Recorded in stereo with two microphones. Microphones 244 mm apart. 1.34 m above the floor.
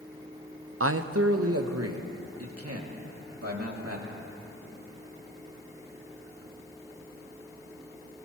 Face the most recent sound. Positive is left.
turn(degrees=-65)  # may be behind; listen again after turning